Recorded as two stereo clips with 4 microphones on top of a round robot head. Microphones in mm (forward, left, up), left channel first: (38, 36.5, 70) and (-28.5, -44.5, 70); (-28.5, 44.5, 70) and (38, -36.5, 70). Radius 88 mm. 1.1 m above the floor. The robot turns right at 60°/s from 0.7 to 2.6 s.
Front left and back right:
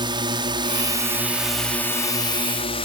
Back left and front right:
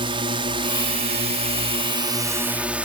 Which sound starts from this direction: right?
A drone, at 0.0 s.